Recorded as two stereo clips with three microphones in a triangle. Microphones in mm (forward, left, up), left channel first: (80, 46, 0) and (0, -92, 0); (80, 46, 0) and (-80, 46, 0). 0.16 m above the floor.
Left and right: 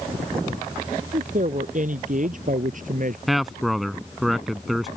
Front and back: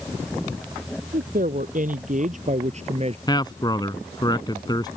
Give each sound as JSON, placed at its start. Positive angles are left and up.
{"t": 1.1, "sound": "a woman speaking", "azimuth_deg": -155}
{"t": 3.3, "sound": "a man speaking", "azimuth_deg": -30}